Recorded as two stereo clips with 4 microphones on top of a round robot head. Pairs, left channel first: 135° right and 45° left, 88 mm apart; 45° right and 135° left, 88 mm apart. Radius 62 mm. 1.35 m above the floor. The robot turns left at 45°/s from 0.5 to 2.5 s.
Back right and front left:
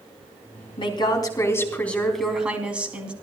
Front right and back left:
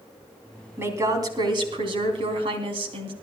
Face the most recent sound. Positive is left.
turn(degrees=120)